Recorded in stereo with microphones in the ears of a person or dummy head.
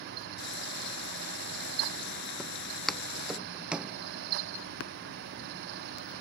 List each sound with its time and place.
0.4 s frying: 70° left (ahead or behind)
2.4 s footsteps: centre (ahead or behind); by 4.0 s 10° right (ahead or behind)
4.8 s tapping: 75° left (ahead or behind)